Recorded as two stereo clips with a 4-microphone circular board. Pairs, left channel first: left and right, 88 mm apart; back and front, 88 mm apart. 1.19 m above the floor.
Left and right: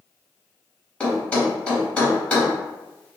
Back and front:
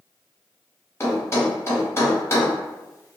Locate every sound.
1.0 s a thud: 155° left, 1.2 m